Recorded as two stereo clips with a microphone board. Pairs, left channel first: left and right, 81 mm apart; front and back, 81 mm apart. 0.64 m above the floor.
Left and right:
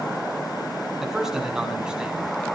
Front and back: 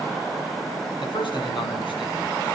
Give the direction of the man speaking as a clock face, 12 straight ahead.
12 o'clock.